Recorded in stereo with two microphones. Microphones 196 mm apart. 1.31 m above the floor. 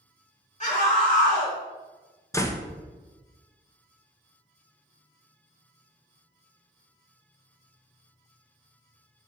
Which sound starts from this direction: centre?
A door slam, at 2.3 s.